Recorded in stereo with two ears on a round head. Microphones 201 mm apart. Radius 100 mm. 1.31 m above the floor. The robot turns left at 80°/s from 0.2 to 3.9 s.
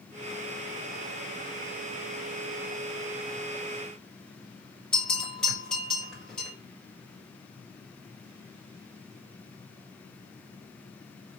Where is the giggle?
I don't hear a giggle.